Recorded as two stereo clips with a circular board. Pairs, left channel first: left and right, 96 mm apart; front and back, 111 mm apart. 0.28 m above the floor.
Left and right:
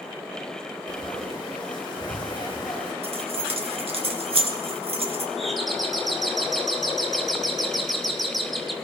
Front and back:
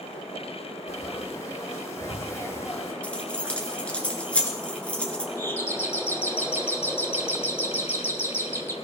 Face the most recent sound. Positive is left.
turn(degrees=5)